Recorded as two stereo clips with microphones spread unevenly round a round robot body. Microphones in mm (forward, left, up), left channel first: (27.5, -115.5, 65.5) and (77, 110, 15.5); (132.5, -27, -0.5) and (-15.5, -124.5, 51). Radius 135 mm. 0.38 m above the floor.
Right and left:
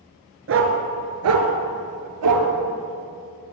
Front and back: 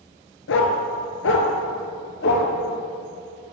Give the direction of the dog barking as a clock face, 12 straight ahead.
11 o'clock.